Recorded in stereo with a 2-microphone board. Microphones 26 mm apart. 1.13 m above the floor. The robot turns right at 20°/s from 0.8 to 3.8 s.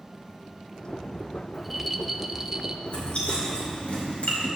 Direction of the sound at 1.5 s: 5° right (ahead or behind).